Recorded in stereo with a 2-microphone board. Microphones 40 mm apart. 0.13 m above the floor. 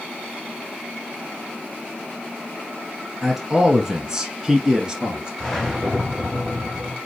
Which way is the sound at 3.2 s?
10° right (ahead or behind).